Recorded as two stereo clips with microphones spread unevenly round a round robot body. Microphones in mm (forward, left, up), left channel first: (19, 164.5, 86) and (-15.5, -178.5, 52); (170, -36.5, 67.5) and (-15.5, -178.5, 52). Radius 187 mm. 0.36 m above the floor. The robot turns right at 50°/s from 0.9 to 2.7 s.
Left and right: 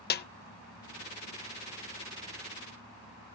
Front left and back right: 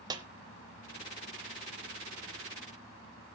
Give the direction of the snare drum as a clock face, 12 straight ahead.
7 o'clock.